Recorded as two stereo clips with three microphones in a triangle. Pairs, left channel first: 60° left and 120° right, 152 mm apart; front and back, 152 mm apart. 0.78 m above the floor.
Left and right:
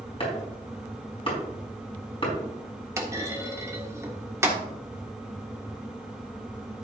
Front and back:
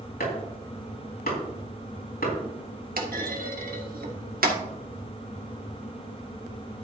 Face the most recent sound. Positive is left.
turn(degrees=170)